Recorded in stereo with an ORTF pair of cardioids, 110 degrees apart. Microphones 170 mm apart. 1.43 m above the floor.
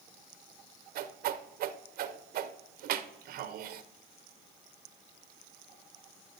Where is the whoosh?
65° right, 0.6 m.